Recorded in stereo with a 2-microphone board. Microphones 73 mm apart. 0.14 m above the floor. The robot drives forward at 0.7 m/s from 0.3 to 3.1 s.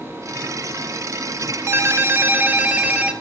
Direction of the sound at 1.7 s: 40° right (ahead or behind).